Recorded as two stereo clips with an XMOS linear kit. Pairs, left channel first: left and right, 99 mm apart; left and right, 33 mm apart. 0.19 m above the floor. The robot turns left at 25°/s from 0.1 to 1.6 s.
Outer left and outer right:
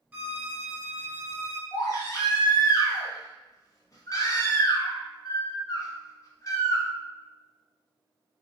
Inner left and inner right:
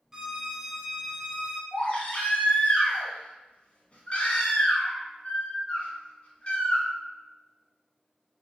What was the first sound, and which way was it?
A violin, 15° right (ahead or behind).